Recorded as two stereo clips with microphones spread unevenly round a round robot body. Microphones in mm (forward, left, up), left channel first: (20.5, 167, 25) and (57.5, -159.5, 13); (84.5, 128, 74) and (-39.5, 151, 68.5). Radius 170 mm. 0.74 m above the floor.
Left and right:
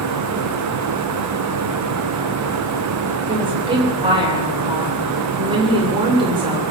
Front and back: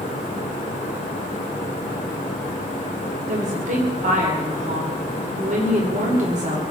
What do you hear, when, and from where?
3.3 s a woman speaking: 160° right, 3 m